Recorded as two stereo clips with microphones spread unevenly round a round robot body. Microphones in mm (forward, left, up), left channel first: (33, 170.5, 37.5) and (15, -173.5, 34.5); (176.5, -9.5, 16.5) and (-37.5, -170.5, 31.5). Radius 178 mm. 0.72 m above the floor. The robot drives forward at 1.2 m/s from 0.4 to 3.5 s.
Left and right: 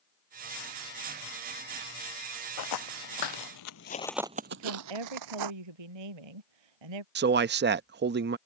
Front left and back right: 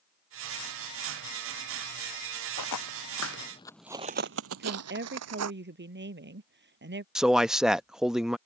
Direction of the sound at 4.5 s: 95° right.